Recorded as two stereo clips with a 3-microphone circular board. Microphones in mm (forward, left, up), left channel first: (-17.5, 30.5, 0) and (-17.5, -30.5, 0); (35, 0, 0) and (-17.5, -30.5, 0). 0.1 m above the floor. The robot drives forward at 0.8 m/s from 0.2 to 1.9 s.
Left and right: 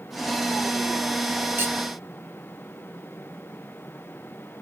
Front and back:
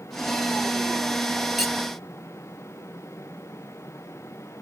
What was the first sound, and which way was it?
Cutlery clinking, 65° right.